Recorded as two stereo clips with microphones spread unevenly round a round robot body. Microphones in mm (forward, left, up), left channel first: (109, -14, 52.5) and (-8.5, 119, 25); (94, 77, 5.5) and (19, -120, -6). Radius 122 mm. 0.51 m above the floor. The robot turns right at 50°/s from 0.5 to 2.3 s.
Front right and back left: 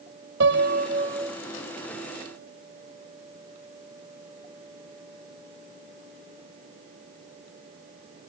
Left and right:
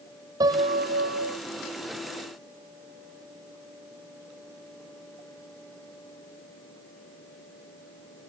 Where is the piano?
175° left; by 1.4 s 145° right.